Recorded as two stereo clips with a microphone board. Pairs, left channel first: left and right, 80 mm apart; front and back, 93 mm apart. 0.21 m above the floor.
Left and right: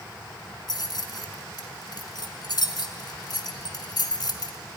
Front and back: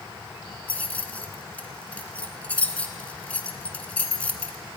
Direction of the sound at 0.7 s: 75° left.